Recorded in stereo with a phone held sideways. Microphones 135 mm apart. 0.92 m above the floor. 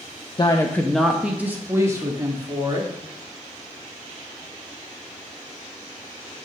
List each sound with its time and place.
0.4 s a woman speaking: 35° left (ahead or behind), 0.5 m; by 2.9 s 30° right (ahead or behind), 1.8 m